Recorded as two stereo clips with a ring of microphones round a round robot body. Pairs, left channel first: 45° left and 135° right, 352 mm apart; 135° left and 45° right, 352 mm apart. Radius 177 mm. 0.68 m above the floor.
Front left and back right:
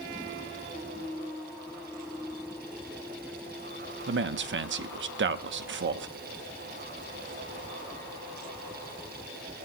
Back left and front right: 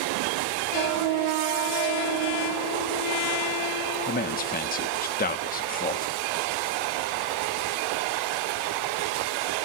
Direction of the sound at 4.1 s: 175° right.